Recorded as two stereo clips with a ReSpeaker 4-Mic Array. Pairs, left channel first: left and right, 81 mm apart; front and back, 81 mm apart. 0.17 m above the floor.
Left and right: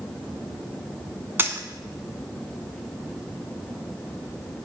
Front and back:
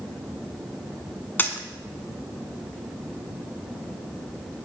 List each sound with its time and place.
1.4 s a dropped coin: 50° right, 0.6 m